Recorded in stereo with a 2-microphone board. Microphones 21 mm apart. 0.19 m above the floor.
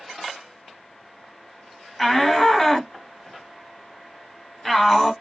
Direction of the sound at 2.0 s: 15° left (ahead or behind).